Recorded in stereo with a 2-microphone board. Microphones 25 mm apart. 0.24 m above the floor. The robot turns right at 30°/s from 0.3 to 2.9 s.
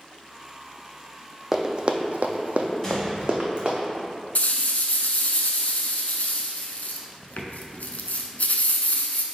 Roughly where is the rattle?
Left.